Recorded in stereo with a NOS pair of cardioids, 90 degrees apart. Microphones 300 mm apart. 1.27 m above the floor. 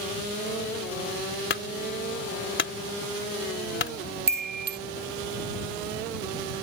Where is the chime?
35° right.